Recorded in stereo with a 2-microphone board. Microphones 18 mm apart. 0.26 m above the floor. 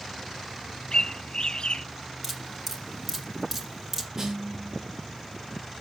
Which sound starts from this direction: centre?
Dripping, at 2.2 s.